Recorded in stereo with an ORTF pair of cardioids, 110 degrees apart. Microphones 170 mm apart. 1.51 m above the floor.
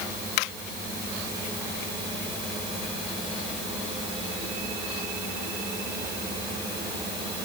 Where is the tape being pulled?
I don't hear tape being pulled.